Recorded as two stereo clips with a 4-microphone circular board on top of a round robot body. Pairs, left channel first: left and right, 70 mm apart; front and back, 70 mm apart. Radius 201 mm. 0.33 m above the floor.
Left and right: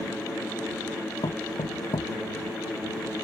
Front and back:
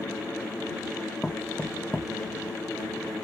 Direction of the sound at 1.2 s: 85° left.